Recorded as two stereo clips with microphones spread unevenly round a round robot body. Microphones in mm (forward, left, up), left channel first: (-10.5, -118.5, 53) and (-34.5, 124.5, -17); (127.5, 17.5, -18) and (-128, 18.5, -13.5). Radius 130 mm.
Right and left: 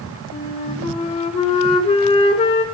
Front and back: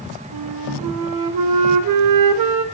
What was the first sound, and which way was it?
A flute, 155° right.